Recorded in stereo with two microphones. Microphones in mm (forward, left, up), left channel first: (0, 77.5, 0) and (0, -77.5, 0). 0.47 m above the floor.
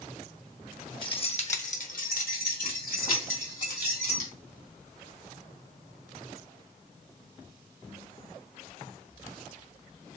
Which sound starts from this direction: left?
Keys jangling, at 1.0 s.